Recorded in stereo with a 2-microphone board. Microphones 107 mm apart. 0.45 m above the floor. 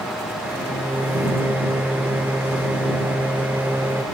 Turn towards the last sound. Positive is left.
turn(degrees=-20)  # may be behind; listen again after turning